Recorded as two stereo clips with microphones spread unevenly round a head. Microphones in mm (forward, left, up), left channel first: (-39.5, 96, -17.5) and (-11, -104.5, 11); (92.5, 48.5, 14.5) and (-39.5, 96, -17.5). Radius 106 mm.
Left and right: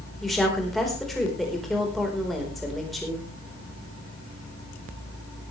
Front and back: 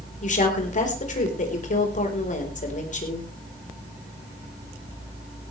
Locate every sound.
0.2 s a woman speaking: 10° left, 4 m